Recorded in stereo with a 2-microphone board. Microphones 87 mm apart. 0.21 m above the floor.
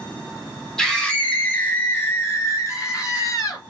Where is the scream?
5° left (ahead or behind), 1.7 m; by 3.6 s 40° left (ahead or behind), 2.5 m.